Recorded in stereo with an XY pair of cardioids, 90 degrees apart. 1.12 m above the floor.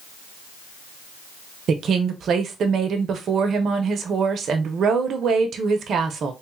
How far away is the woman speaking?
About 0.9 m.